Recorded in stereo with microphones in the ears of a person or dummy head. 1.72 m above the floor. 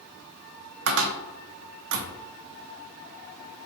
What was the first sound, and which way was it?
A cupboard door, 70° right (ahead or behind).